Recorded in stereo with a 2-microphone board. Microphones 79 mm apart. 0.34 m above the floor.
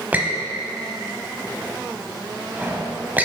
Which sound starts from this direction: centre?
A squeak, at 0.1 s.